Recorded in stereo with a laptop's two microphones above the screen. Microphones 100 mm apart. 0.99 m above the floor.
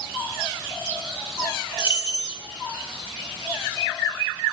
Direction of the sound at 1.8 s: 50° left (ahead or behind).